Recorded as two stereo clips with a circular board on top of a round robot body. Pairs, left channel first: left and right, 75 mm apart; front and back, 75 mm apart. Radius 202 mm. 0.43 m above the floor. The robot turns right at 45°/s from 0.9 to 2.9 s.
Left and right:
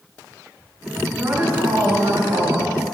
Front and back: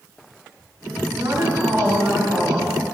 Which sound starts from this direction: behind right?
A woman speaking, at 1.2 s.